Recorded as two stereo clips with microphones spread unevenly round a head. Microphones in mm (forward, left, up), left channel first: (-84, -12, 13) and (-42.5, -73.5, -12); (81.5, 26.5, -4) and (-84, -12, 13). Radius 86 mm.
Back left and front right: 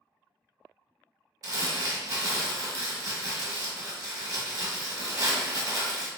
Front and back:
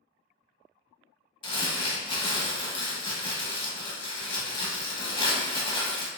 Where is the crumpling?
25° right, 0.9 m.